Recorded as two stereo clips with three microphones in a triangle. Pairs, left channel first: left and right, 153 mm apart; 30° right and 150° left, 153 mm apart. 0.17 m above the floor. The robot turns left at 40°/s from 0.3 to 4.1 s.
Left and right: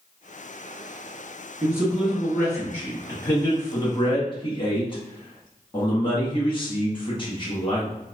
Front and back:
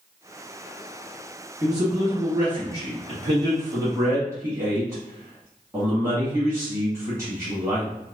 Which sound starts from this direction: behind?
A man speaking, at 1.6 s.